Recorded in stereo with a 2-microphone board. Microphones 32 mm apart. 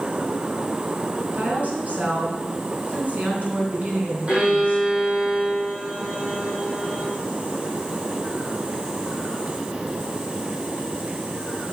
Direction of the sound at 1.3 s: 45° right (ahead or behind).